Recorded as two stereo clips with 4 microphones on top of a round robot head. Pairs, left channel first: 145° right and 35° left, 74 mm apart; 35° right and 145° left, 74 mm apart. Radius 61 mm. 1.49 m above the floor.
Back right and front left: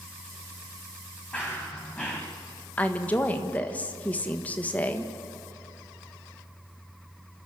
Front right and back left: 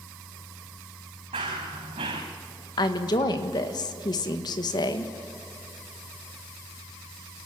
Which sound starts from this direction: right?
A woman speaking, at 2.8 s.